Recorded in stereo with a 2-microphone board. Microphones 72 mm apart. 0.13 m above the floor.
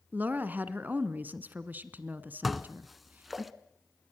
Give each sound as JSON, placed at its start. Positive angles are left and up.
{"t": 0.1, "sound": "a woman speaking", "side_deg": -25, "distance_m": 1.2}
{"t": 2.4, "sound": "dishes clattering", "side_deg": 0, "distance_m": 0.9}